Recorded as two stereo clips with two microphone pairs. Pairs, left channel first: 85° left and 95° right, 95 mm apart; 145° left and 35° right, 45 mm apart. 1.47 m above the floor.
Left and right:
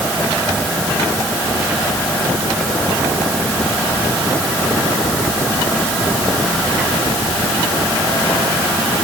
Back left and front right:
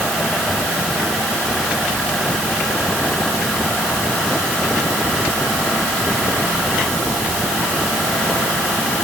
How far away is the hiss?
No hiss in this recording.